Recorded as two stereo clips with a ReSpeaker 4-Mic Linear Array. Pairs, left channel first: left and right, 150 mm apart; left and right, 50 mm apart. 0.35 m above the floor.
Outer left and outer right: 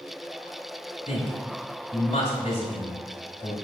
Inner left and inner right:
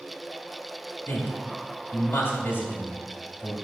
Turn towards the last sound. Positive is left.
turn(degrees=50)  # may be behind; listen again after turning